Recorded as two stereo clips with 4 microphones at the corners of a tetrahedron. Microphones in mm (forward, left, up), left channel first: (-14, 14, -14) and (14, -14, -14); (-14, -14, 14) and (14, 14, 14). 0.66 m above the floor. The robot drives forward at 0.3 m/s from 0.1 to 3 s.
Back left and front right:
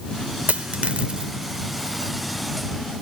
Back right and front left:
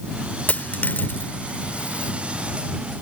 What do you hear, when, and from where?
0.5 s a dropped coin: 90° right; by 2.1 s 115° right